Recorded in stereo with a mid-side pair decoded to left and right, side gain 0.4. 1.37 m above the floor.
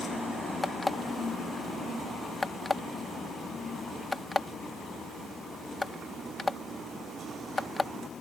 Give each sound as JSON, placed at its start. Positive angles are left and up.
{"t": 0.6, "sound": "an alarm clock", "azimuth_deg": 25}